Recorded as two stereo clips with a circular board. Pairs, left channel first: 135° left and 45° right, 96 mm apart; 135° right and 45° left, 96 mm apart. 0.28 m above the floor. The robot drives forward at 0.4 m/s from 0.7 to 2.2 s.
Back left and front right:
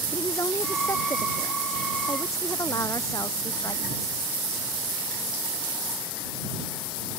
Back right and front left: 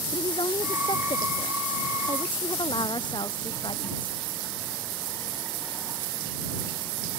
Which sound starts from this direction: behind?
A woman speaking, at 0.1 s.